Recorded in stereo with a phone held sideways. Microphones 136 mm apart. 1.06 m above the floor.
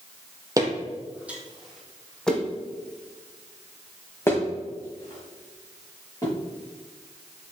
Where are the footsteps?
25° right (ahead or behind), 1.6 m; by 6.3 s 25° left (ahead or behind), 5.5 m.